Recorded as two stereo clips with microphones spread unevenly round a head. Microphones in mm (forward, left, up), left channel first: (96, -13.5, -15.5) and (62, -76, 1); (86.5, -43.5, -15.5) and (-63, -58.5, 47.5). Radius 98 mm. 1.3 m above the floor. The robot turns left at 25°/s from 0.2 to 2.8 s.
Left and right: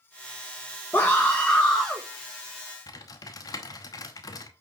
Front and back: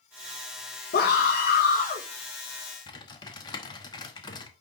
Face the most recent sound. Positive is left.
turn(degrees=90)